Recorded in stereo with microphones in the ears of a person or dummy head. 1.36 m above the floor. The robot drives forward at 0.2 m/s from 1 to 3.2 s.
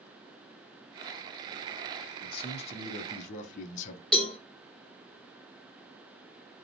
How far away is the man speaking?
About 0.6 m.